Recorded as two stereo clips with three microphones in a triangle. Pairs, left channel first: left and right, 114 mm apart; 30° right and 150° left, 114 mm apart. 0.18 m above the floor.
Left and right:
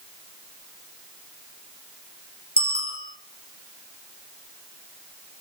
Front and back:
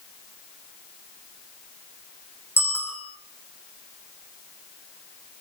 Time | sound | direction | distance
2.6 | a bicycle bell | 100° right | 7 m